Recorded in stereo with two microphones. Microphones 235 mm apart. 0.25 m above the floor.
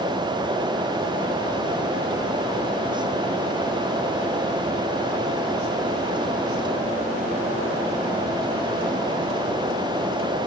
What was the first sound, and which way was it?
Only background noise.